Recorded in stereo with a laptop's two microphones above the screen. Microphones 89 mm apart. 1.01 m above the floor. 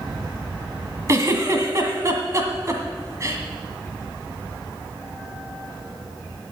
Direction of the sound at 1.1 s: 35° right (ahead or behind).